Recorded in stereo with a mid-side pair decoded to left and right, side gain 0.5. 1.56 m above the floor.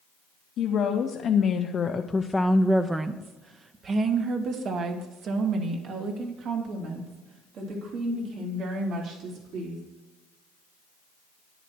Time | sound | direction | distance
0.6 | a woman speaking | 70° left | 1.4 m